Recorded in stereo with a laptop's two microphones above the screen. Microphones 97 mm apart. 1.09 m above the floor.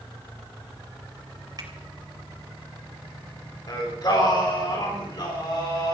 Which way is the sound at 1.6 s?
40° right (ahead or behind).